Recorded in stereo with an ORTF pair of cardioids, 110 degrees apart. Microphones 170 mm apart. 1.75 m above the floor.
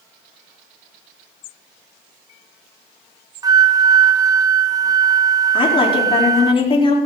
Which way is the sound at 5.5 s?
30° left.